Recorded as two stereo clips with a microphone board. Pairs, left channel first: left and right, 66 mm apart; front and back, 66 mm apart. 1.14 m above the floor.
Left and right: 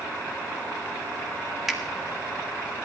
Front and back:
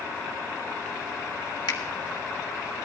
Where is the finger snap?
5° right, 1.8 m.